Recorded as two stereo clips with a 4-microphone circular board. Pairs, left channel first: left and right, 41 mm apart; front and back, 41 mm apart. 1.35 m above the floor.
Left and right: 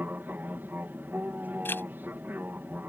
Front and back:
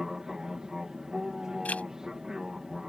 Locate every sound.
0.0 s an aircraft: 105° right
1.6 s a zipper: 55° left